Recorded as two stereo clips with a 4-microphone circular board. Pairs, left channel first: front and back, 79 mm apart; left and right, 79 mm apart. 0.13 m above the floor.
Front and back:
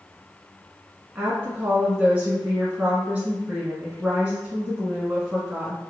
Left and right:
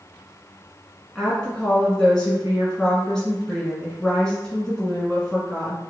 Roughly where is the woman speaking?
Behind left.